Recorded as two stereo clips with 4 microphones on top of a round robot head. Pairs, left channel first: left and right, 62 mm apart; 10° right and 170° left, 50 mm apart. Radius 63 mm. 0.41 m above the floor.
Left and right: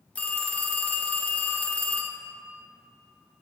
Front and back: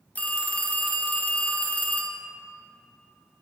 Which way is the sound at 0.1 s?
35° left.